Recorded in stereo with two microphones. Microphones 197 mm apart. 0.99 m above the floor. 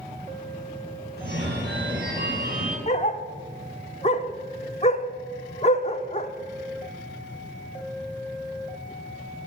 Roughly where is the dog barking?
Left.